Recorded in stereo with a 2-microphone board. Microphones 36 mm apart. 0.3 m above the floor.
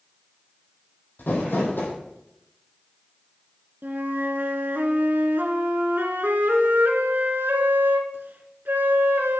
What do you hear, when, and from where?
1.2 s crumpling: 75° left (ahead or behind), 2.5 m
3.8 s a flute: 80° right, 0.9 m